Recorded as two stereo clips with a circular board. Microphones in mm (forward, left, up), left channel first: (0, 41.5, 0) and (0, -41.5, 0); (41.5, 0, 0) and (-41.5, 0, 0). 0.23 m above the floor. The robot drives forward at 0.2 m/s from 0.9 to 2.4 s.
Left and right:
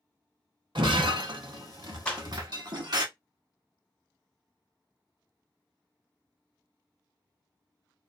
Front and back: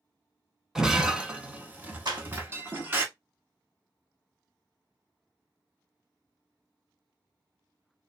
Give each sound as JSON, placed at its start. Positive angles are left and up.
{"t": 0.8, "sound": "breaking glass", "azimuth_deg": -95, "distance_m": 0.7}
{"t": 2.0, "sound": "a clap", "azimuth_deg": 165, "distance_m": 1.6}